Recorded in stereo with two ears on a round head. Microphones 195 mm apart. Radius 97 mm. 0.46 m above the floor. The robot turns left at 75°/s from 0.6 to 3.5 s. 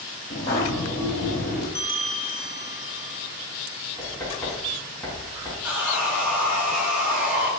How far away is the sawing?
About 2 m.